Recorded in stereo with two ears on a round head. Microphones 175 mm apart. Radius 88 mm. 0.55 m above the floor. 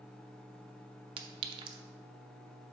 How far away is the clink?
About 0.6 m.